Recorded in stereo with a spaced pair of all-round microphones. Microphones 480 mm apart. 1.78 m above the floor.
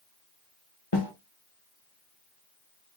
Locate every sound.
0.9 s a snare drum: 55° left (ahead or behind), 1.3 m